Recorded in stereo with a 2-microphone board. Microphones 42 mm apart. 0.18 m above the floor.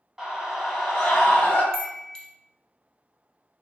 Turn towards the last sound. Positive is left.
turn(degrees=15)  # may be behind; listen again after turning